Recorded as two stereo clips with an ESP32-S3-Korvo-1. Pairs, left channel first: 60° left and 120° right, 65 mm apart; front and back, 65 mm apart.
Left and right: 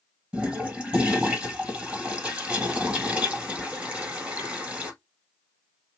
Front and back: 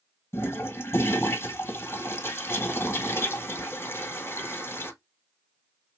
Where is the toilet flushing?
50° right, 1.2 m.